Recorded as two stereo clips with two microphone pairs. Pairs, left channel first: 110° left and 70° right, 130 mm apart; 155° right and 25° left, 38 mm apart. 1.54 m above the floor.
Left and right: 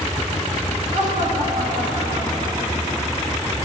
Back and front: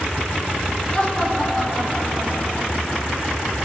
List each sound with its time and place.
0.9 s laughter: 80° right, 3 m; by 3.0 s 40° right, 4.5 m